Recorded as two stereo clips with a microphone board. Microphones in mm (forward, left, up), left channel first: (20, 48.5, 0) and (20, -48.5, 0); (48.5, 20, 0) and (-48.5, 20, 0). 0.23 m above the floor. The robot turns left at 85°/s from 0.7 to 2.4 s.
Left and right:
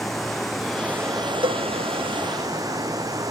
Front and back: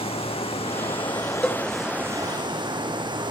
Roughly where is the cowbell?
Right.